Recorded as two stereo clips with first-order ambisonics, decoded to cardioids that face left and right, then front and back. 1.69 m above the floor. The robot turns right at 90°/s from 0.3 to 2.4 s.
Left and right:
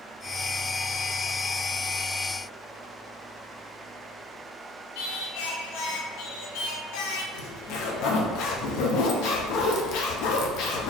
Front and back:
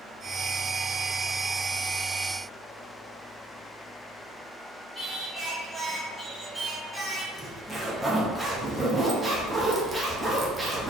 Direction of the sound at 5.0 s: 95° left.